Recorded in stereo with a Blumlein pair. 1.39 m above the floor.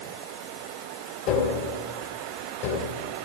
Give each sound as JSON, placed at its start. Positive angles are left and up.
{"t": 1.3, "sound": "tapping", "azimuth_deg": 40, "distance_m": 2.5}